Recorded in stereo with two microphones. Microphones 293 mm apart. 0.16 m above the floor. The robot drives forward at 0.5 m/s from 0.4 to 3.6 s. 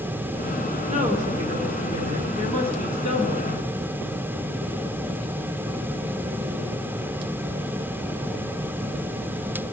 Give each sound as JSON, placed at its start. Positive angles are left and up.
{"t": 0.9, "sound": "a woman speaking", "side_deg": -25, "distance_m": 2.0}